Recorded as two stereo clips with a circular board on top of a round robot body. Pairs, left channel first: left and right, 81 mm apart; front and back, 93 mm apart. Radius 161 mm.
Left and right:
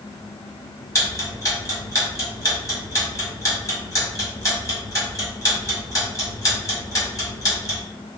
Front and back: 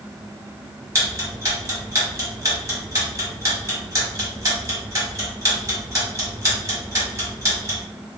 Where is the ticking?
130° left, 1.8 m.